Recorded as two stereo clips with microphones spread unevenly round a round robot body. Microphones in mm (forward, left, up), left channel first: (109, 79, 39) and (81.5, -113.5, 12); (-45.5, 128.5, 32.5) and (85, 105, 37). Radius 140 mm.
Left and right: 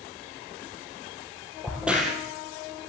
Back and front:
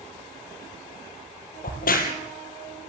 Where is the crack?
175° left, 3.5 m.